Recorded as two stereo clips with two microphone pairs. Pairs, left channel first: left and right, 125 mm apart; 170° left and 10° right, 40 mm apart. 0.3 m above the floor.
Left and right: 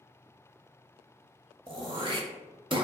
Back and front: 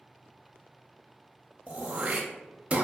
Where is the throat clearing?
60° right, 0.5 m.